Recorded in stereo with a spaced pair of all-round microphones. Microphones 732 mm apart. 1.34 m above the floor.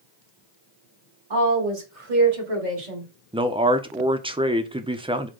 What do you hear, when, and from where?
1.3 s a woman speaking: 90° right, 2.5 m; by 3.1 s 60° right (ahead or behind), 2 m
3.3 s a man speaking: 10° right (ahead or behind), 0.5 m